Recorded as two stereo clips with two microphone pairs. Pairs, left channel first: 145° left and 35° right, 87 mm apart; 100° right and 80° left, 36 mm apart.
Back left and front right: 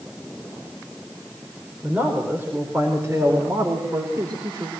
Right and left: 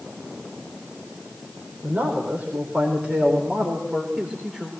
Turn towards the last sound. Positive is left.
turn(degrees=5)